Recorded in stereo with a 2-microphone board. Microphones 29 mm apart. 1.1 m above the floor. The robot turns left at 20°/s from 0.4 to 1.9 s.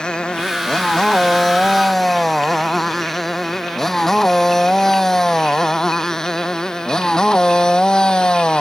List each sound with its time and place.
0.0 s a motorcycle: 30° left (ahead or behind)